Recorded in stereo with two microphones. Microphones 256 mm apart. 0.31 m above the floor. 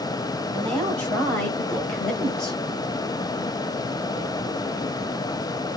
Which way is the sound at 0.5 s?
5° left (ahead or behind).